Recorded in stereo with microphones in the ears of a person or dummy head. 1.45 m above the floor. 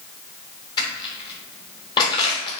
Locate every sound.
0.8 s crushing: 25° left (ahead or behind), 1.2 m